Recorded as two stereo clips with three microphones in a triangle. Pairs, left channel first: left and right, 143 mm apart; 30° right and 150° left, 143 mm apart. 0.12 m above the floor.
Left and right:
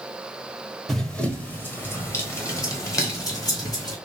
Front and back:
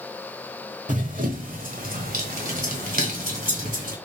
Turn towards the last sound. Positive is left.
turn(degrees=150)